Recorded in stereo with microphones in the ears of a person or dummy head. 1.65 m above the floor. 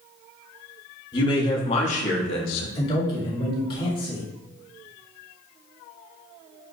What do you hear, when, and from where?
1.1 s a man speaking: 25° left (ahead or behind), 1.4 m; by 2.6 s 80° left, 0.6 m
2.8 s a man speaking: 30° left (ahead or behind), 1.8 m